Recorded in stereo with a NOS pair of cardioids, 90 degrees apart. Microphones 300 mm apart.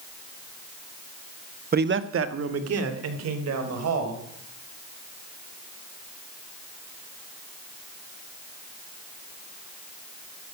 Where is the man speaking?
30° right, 0.9 m; by 4.2 s 60° right, 4.5 m.